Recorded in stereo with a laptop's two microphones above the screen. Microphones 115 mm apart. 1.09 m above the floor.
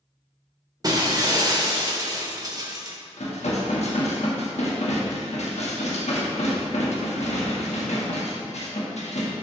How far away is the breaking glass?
About 0.9 m.